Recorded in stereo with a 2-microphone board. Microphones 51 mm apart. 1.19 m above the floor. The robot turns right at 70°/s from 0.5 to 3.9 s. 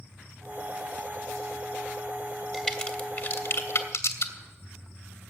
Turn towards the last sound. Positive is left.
turn(degrees=65)  # may be behind; listen again after turning